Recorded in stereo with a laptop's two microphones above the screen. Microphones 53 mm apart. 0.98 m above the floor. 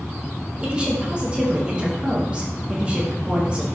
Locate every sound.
0.6 s a woman speaking: 20° right (ahead or behind), 0.9 m